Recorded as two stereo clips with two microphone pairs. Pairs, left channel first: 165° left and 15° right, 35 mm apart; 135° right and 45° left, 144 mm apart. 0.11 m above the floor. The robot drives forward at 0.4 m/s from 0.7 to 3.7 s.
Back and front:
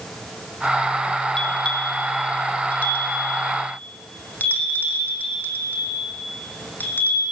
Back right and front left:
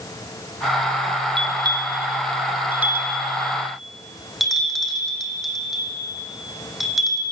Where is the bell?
100° left, 1.2 m; by 7.2 s 135° left, 1.6 m.